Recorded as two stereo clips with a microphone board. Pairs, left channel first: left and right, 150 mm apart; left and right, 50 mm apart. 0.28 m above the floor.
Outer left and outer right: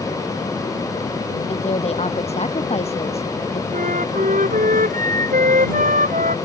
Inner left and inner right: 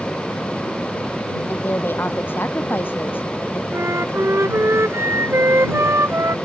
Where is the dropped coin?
No dropped coin in this recording.